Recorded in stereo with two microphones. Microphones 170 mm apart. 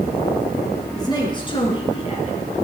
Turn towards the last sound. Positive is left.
turn(degrees=40)  # may be behind; listen again after turning